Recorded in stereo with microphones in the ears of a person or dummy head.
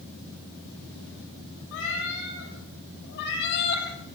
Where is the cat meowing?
70° left (ahead or behind), 8 m; by 3.9 s 55° left (ahead or behind), 6 m.